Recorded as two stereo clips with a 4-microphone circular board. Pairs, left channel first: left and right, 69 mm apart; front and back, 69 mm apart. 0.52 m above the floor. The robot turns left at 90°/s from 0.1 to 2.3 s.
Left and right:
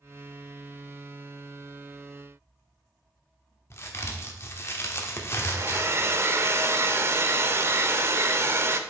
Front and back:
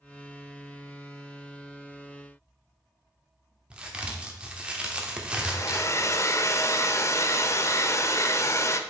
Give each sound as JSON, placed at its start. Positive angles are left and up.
{"t": 3.7, "sound": "a crack", "azimuth_deg": 115, "distance_m": 1.0}
{"t": 5.4, "sound": "a hair dryer", "azimuth_deg": -40, "distance_m": 0.5}